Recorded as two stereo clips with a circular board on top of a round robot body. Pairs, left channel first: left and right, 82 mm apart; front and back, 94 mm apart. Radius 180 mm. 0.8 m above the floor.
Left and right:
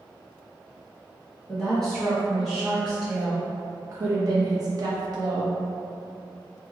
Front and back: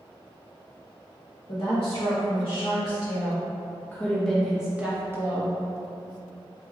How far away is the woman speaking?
About 1.7 m.